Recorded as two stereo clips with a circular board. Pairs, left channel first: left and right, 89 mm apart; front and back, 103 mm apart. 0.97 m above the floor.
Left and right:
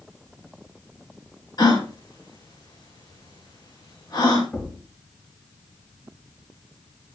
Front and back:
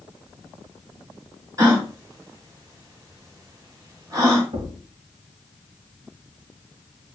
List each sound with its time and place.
1.6 s a gasp: 125° left, 5 m
4.5 s a thud: 160° left, 3 m